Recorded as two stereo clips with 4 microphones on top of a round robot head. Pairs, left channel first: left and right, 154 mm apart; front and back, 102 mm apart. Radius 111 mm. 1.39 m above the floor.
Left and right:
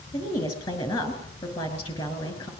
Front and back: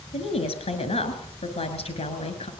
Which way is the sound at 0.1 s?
25° left.